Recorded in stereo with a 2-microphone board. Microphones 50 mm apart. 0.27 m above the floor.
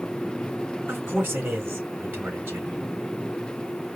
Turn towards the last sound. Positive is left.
turn(degrees=-45)  # may be behind; listen again after turning